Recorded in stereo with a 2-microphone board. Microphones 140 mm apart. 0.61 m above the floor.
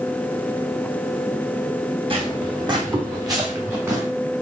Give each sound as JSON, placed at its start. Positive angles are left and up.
{"t": 2.1, "sound": "footsteps", "side_deg": -40, "distance_m": 2.0}